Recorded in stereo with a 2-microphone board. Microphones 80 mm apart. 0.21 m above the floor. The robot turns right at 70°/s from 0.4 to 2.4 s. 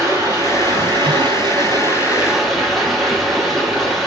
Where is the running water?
140° right, 6.5 m; by 4.1 s straight ahead, 6.5 m.